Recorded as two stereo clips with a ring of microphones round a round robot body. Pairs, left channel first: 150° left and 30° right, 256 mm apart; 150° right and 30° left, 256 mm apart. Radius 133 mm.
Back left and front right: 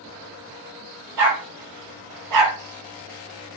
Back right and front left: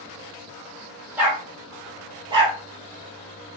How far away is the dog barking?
About 3.5 m.